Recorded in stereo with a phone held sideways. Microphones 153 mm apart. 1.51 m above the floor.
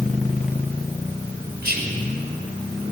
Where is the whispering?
90° right, 1.6 m.